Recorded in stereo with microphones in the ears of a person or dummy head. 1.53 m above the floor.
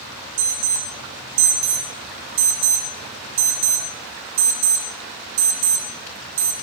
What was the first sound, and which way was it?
An alarm, 80° right.